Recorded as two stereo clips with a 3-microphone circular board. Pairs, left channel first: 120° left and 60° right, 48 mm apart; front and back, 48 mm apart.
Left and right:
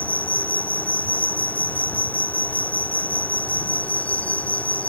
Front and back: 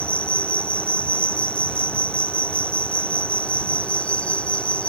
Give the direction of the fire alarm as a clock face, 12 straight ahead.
No fire alarm in this recording.